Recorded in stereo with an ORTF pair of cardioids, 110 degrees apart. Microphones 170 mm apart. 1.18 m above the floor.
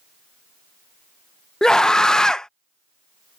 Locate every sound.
1.6 s a scream: 5° left